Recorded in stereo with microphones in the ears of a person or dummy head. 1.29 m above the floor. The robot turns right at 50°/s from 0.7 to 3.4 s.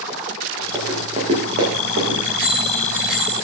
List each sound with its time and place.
0.7 s running footsteps: 15° right (ahead or behind), 6.5 m; by 2.1 s 70° right (ahead or behind), 7.5 m
2.2 s a bicycle bell: 45° right, 9 m; by 3.4 s 10° left, 9 m